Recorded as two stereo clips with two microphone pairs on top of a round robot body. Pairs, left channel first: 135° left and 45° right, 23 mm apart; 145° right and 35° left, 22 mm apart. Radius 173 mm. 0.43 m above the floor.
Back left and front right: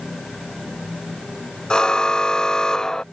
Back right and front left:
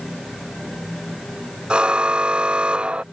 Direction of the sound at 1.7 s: 80° left.